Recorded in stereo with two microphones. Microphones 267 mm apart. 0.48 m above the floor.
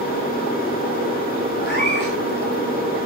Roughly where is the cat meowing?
Left.